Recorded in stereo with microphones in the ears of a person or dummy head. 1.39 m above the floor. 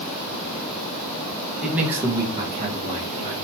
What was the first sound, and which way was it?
A man speaking, centre (ahead or behind).